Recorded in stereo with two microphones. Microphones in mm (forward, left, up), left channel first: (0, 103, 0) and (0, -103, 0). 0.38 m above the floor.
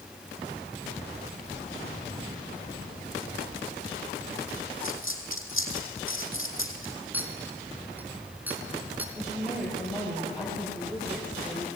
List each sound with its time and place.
4.8 s a dropped coin: 80° left, 4.5 m
7.1 s a clink: 10° right (ahead or behind), 3.5 m
9.2 s a woman speaking: 5° right (ahead or behind), 9.5 m